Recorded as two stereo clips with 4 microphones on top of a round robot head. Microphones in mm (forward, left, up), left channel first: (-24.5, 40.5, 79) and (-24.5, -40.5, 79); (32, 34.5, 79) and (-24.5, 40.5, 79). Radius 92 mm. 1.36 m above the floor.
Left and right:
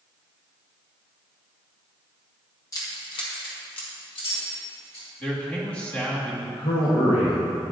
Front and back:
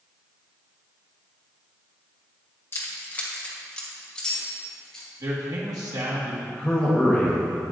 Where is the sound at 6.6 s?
65° left, 1.1 m.